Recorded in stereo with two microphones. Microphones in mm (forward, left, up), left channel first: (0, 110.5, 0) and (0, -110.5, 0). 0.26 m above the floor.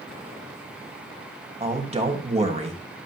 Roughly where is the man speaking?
Right.